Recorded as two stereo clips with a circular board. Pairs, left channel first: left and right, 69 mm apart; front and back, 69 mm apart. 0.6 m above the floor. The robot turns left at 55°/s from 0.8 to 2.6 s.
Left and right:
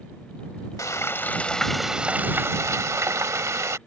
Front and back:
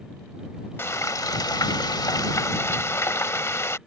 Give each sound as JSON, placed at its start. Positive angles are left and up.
{"t": 0.8, "sound": "frying", "azimuth_deg": 50}